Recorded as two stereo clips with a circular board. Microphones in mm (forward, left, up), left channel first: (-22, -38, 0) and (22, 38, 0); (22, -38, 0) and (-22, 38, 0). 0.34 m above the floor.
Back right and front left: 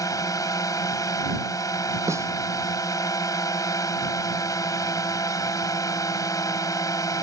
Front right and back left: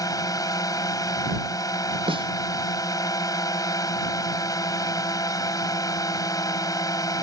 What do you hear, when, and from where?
0.0 s a drone: 90° right
2.1 s a snare drum: 115° left